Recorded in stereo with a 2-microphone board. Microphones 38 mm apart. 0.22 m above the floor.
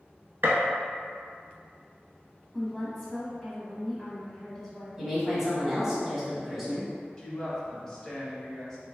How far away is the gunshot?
About 0.8 m.